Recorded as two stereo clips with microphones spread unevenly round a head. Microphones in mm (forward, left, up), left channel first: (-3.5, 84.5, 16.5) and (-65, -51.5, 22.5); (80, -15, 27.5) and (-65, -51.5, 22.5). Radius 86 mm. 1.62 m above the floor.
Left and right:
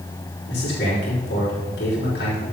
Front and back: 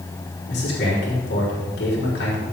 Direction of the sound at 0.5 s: 40° left.